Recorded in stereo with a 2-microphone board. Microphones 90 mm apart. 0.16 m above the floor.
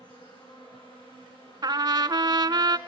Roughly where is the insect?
Left.